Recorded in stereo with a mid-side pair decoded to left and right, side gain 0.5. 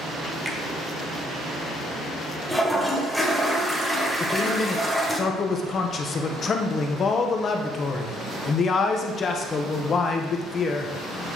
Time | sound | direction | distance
0.5 | a finger snap | 10° right | 1.4 m
2.5 | a toilet flushing | straight ahead | 1.5 m
4.2 | a man speaking | 45° left | 1.0 m